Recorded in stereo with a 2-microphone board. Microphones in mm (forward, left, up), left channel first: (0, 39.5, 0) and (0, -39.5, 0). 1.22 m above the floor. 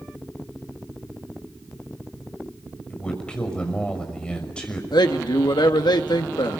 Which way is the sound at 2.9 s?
15° left (ahead or behind).